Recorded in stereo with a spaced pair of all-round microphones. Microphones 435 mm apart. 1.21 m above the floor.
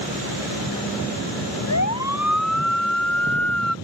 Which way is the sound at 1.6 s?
40° left (ahead or behind).